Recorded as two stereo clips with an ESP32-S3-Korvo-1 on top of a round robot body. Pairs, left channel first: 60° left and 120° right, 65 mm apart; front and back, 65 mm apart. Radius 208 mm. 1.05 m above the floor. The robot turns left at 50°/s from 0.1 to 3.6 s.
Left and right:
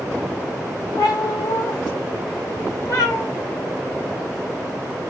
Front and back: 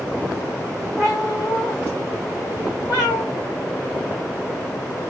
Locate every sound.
1.0 s a cat meowing: 115° left, 1.1 m; by 3.2 s straight ahead, 1.1 m